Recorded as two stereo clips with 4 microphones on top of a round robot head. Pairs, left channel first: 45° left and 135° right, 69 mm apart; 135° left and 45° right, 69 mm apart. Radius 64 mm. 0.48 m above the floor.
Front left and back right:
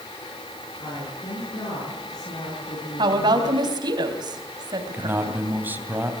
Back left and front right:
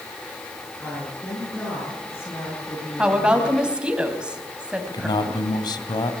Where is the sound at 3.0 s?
120° right, 3.5 m.